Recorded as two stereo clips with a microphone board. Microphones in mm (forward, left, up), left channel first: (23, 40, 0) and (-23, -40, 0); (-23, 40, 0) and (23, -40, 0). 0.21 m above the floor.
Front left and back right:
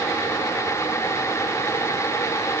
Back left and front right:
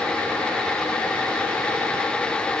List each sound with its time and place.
Only background noise.